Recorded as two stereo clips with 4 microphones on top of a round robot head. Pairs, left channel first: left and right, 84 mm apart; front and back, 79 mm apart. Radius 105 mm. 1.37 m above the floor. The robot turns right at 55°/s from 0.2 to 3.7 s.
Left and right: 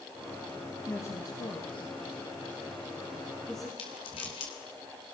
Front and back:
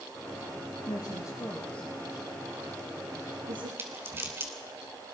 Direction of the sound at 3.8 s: 120° left.